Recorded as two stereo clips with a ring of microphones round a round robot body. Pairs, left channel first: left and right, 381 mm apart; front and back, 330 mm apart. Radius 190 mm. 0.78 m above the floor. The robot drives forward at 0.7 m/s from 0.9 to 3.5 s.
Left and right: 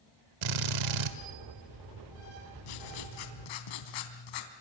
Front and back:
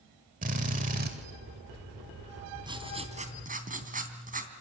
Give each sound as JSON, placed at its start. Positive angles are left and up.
{"t": 0.4, "sound": "a drill", "azimuth_deg": -110, "distance_m": 1.8}
{"t": 2.6, "sound": "writing", "azimuth_deg": 100, "distance_m": 3.0}